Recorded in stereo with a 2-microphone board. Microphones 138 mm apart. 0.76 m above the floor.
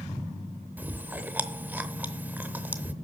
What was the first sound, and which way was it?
Chewing, 15° right (ahead or behind).